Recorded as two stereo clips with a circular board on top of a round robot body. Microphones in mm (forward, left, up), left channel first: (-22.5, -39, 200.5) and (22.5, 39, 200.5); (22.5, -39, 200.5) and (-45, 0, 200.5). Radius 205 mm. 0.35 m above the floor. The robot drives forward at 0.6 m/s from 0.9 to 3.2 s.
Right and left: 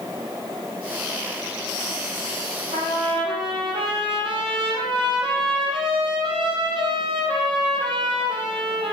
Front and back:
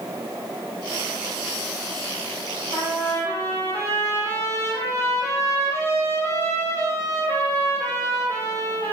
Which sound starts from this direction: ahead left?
A trumpet, at 2.7 s.